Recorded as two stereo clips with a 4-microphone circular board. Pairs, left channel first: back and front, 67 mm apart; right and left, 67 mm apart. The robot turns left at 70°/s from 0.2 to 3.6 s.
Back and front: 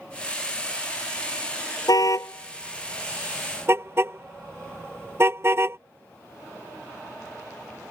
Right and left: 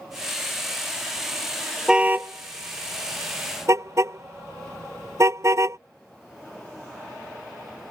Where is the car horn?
170° left; by 5.8 s 50° left.